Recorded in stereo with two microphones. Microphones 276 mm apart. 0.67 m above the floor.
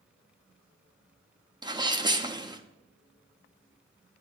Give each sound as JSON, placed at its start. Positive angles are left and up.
{"t": 1.6, "sound": "a sneeze", "side_deg": -15, "distance_m": 0.6}